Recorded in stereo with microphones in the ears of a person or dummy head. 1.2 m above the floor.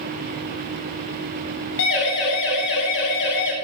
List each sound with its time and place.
1.8 s a siren: 70° left (ahead or behind), 9 m